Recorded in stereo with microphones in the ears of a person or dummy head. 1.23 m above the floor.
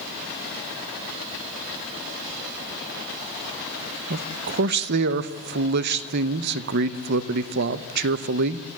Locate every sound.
4.1 s a man speaking: 60° right (ahead or behind), 0.8 m